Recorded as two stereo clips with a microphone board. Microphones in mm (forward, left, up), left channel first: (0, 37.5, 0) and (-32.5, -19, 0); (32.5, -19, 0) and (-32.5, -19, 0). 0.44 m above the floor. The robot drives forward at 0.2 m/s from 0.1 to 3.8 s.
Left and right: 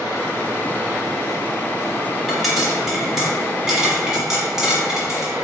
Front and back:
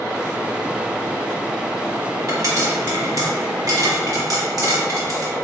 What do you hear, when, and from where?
2.3 s a pop: 150° left, 0.8 m; by 5.3 s 160° left, 1.1 m